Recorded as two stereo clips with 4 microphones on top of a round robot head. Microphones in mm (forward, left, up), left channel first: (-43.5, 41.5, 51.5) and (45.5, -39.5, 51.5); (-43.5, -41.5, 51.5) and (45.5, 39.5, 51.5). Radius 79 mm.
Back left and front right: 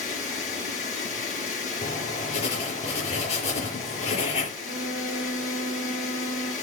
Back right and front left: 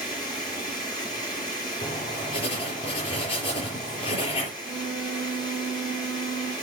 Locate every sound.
0.0 s running water: 165° left, 6 m
1.8 s writing: 175° left, 5 m
4.6 s a flute: 175° left, 4.5 m